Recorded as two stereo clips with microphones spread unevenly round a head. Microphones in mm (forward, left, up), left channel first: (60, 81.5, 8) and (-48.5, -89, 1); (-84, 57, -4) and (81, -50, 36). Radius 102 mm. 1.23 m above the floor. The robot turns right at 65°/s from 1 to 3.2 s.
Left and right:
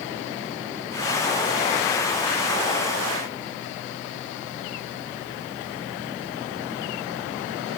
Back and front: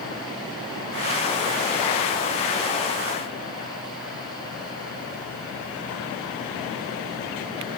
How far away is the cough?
No cough in this recording.